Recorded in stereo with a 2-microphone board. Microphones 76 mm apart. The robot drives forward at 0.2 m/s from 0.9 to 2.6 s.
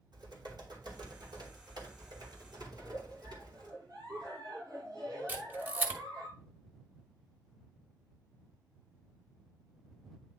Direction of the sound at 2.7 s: 55° right (ahead or behind).